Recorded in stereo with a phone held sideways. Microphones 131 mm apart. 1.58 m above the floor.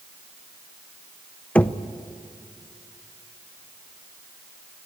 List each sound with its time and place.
1.6 s knocking: 10° left (ahead or behind), 0.6 m